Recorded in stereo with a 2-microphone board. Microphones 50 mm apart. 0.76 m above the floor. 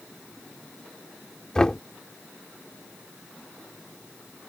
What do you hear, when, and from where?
1.6 s knocking: 15° left (ahead or behind)